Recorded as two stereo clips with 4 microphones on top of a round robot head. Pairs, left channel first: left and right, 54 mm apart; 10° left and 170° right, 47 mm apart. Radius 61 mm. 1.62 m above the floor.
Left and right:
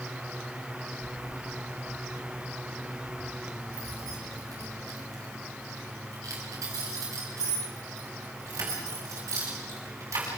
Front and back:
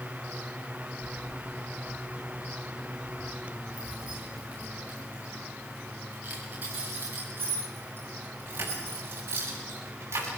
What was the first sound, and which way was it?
Keys jangling, 85° right.